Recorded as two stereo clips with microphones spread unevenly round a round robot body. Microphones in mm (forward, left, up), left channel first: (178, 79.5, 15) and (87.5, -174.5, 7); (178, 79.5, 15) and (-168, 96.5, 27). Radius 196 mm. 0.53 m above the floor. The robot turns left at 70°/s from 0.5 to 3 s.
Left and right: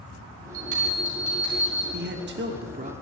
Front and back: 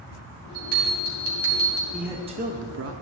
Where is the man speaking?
90° right, 0.8 m; by 2.9 s 160° right, 0.8 m.